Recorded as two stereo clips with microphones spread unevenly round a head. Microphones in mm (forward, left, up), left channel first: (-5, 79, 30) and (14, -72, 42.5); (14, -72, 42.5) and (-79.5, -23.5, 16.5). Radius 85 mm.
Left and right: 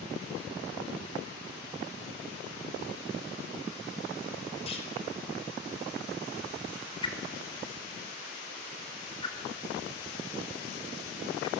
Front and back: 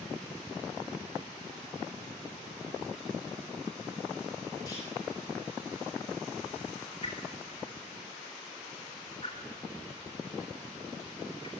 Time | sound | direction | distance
4.7 | a clunk | 40° left | 5 m
7.0 | a whoosh | 35° left | 4 m